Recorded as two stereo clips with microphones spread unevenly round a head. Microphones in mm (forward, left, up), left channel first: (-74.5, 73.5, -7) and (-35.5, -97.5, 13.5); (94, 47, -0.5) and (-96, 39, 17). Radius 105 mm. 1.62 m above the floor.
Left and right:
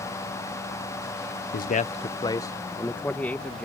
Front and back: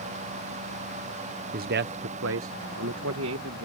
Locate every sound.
1.5 s a man speaking: 140° left; by 3.6 s 170° right